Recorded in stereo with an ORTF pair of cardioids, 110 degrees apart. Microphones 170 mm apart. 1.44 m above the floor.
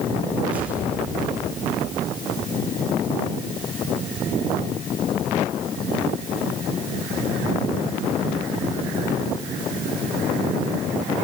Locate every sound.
0.5 s an explosion: 10° right, 5 m